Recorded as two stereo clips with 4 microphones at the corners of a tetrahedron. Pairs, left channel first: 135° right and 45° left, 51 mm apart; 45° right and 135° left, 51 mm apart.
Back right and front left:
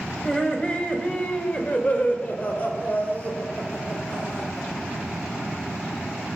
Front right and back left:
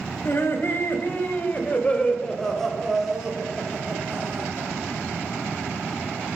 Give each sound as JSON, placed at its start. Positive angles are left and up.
{"t": 0.2, "sound": "laughter", "azimuth_deg": -65, "distance_m": 2.5}